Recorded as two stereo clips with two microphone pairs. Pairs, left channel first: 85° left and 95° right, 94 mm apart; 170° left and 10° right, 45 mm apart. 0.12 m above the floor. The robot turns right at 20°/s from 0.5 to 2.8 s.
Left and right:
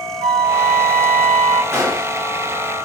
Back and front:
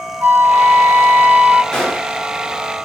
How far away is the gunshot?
About 1.7 m.